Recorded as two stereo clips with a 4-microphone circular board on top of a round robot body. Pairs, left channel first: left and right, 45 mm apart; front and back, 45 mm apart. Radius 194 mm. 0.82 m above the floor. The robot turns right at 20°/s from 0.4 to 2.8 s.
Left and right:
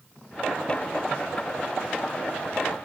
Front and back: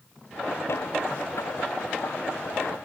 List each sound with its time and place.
Only background noise.